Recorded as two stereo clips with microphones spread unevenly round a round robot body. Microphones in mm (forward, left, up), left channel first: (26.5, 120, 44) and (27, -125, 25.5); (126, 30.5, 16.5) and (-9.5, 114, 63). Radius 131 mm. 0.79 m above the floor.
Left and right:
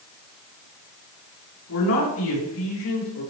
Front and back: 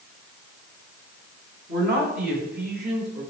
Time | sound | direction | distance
1.7 | a man speaking | 130° left | 5.5 m